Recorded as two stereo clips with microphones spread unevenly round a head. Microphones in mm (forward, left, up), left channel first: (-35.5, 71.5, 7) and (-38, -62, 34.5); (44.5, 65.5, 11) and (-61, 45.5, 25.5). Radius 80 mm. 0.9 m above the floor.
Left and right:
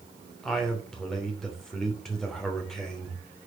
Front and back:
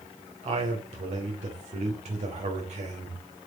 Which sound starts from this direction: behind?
A man speaking, at 0.4 s.